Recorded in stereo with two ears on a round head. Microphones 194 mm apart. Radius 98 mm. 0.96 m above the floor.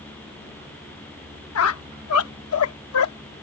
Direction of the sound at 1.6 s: 75° left (ahead or behind).